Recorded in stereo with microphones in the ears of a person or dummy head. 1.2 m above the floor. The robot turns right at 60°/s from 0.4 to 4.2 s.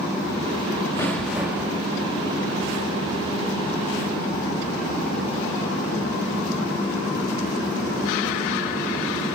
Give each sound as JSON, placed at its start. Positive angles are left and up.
{"t": 1.0, "sound": "an explosion", "azimuth_deg": 165, "distance_m": 0.8}